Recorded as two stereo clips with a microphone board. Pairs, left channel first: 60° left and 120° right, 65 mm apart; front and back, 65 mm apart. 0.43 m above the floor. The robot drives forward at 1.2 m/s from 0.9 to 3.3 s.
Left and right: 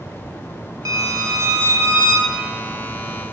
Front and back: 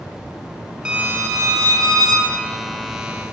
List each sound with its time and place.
0.8 s a violin: 105° right, 0.6 m; by 2.3 s 165° right, 1.9 m